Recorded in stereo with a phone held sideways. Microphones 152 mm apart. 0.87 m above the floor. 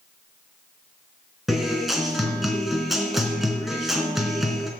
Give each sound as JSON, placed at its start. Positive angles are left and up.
{"t": 1.5, "sound": "a guitar", "side_deg": 0, "distance_m": 3.0}